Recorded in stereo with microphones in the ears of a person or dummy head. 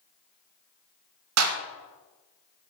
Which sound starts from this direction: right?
A clap, at 1.4 s.